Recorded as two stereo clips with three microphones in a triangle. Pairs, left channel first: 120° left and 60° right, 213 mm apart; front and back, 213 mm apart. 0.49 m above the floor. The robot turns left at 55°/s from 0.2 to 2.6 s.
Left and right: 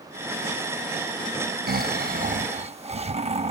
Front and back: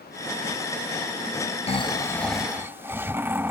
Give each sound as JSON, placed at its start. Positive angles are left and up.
{"t": 1.7, "sound": "snoring", "azimuth_deg": -50}